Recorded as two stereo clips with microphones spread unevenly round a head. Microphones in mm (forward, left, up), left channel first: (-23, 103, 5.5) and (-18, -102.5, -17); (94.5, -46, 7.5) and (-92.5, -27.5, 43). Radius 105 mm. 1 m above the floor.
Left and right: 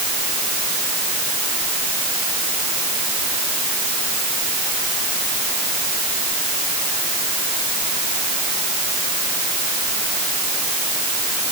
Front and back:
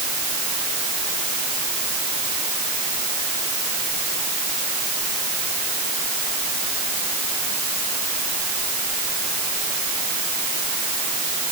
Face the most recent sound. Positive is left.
No sound to turn to.